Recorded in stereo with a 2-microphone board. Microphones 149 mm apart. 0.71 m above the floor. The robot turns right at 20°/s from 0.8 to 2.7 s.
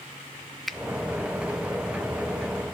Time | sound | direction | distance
0.7 | a finger snap | centre (ahead or behind) | 0.6 m